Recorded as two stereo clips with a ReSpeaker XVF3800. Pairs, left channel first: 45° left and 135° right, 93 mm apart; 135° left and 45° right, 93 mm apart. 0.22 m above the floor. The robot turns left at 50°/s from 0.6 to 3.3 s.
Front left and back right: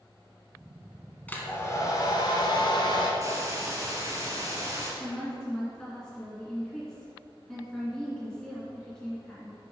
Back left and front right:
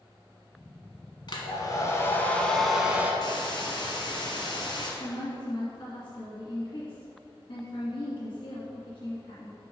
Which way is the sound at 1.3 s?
115° left.